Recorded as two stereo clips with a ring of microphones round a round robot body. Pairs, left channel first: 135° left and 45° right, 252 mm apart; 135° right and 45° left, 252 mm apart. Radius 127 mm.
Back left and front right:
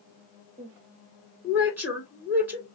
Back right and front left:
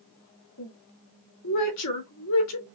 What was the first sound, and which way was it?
A woman speaking, 125° right.